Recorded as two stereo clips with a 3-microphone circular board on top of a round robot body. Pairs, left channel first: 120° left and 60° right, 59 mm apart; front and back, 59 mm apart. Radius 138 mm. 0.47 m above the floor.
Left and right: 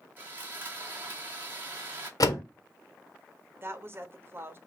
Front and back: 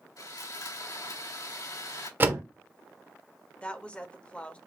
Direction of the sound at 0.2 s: Straight ahead.